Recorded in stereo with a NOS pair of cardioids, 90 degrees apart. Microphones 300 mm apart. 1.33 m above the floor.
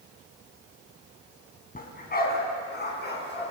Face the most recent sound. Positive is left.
turn(degrees=35)